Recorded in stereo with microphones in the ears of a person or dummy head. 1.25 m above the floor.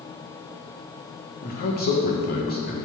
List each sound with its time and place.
1.4 s a man speaking: 50° left (ahead or behind), 1.5 m